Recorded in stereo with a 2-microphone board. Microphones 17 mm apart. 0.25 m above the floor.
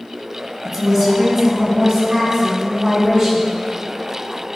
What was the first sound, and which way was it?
A woman speaking, 15° right (ahead or behind).